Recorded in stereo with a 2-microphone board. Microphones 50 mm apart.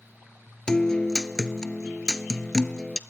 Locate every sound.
0.7 s a guitar: 15° left (ahead or behind), 0.6 m